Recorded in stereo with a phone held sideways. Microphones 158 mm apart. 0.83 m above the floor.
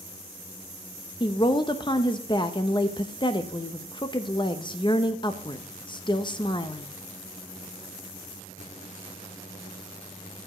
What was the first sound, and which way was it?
A woman speaking, 30° left (ahead or behind).